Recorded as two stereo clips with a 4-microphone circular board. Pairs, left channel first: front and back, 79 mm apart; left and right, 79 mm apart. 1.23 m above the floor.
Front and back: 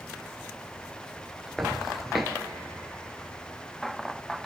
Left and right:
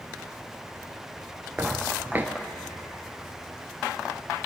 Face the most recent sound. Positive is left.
turn(degrees=-90)